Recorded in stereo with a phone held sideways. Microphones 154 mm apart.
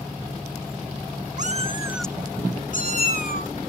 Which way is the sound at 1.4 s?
55° right (ahead or behind).